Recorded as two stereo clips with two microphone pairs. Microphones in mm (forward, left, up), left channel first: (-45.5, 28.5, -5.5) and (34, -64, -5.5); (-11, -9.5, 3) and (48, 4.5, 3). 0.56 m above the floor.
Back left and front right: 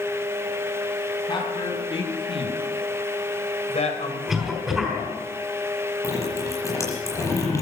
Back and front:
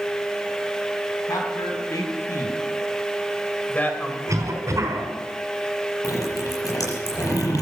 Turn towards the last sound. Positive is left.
turn(degrees=-165)